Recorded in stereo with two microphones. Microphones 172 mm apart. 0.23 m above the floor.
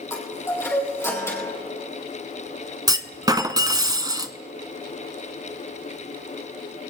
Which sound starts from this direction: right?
A clunk, at 2.9 s.